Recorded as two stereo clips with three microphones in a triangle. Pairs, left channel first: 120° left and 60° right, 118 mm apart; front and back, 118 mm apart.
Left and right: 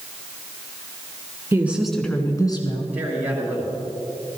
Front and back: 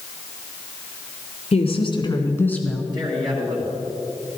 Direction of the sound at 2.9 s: 135° right.